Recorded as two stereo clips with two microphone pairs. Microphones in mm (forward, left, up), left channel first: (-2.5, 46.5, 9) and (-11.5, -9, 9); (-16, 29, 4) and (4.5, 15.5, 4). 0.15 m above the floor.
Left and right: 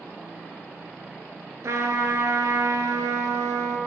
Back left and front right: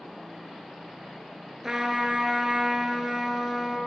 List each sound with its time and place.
1.6 s a trumpet: 110° right, 0.7 m